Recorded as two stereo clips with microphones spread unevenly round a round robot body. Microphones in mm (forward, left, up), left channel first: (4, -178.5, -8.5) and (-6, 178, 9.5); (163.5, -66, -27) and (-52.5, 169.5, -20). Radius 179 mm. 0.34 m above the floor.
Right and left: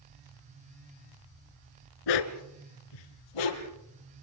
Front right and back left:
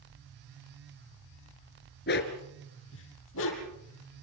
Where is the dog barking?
110° right, 1.6 m; by 3.8 s 105° right, 4 m.